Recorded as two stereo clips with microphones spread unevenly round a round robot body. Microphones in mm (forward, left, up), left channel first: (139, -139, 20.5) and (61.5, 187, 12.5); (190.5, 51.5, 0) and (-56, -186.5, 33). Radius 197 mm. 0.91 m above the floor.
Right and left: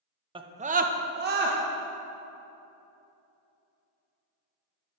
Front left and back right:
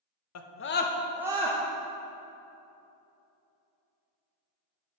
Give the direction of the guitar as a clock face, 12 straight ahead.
No guitar in this recording.